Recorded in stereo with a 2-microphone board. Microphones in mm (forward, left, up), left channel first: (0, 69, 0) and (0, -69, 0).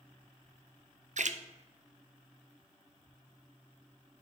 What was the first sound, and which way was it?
A splash, 60° right (ahead or behind).